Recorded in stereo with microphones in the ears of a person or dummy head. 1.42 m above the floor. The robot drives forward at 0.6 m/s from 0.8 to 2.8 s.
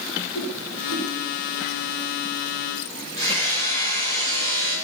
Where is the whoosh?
70° left (ahead or behind), 7.5 m.